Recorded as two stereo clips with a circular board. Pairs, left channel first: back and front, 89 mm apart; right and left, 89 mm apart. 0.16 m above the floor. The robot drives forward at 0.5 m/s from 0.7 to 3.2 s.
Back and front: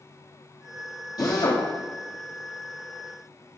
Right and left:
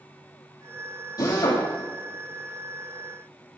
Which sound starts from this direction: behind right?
A drill, at 1.2 s.